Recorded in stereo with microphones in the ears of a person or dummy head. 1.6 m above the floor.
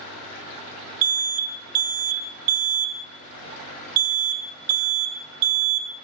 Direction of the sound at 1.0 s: 75° right (ahead or behind).